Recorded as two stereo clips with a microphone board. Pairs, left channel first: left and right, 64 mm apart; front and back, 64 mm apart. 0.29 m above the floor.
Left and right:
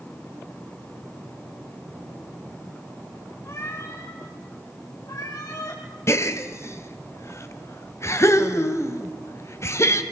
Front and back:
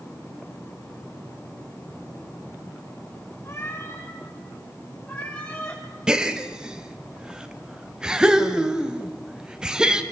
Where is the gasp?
105° left, 1.6 m.